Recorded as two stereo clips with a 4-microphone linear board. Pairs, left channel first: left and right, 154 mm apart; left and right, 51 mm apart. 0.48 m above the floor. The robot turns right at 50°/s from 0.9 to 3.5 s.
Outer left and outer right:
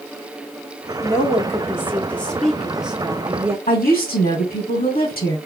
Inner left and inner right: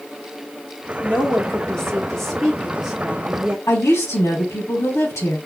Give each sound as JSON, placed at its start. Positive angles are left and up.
{"t": 1.0, "sound": "a woman speaking", "side_deg": 20, "distance_m": 1.4}
{"t": 3.7, "sound": "a woman speaking", "side_deg": 75, "distance_m": 3.5}